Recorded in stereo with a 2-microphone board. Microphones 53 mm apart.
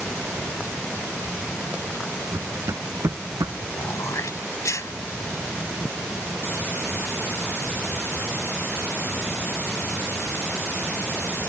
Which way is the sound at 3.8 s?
70° left (ahead or behind).